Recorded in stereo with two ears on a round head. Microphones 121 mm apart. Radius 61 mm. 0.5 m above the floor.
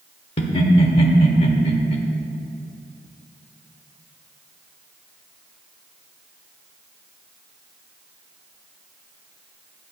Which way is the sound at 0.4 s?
45° left (ahead or behind).